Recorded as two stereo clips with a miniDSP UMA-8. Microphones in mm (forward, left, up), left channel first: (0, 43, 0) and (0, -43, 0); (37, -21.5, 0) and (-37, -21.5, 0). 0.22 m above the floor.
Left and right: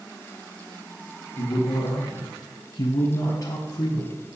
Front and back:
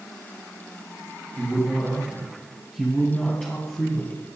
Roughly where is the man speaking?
Left.